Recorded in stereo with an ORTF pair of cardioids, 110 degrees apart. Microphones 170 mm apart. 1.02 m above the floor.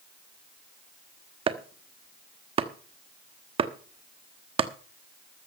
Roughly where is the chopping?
Ahead right.